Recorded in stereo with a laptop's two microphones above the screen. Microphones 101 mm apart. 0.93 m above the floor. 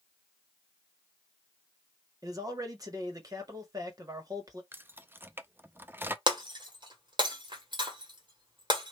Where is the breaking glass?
50° right (ahead or behind), 1.6 m.